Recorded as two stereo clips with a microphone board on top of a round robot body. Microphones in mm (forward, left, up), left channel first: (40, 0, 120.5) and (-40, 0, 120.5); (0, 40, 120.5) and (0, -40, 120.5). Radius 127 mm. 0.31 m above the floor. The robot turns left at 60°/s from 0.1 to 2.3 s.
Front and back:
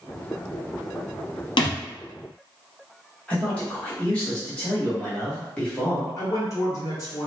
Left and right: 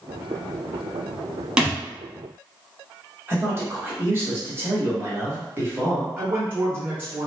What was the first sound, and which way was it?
A thud, 10° right.